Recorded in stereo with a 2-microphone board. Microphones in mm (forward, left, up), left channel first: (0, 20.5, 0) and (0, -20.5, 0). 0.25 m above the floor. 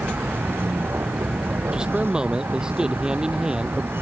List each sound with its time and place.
0.0 s a vehicle: 70° right (ahead or behind)
1.7 s a man speaking: 20° right (ahead or behind)